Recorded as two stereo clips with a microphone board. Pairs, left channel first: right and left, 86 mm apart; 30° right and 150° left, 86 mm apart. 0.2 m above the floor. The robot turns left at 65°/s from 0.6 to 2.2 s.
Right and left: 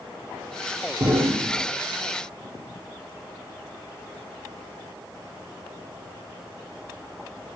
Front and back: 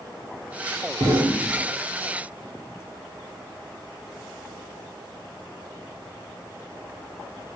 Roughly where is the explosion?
Behind left.